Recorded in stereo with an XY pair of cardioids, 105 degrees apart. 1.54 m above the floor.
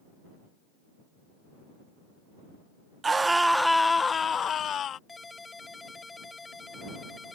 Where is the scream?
30° right; by 5.0 s 60° left.